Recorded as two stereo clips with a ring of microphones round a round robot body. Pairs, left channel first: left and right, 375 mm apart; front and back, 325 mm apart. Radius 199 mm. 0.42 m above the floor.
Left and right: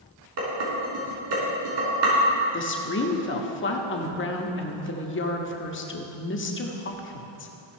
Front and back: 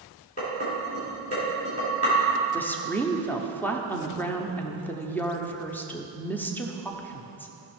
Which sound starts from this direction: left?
A woman speaking, at 2.5 s.